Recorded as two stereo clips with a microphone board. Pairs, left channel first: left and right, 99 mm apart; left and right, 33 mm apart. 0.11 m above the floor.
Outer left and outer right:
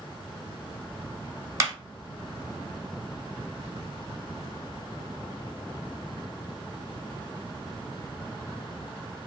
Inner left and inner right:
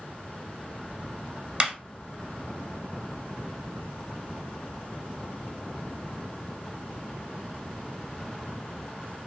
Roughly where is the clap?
Right.